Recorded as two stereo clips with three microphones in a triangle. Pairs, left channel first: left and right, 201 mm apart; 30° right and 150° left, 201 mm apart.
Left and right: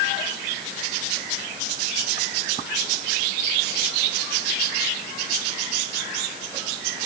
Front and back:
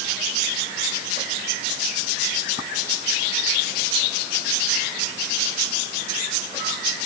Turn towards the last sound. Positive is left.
No sound to turn to.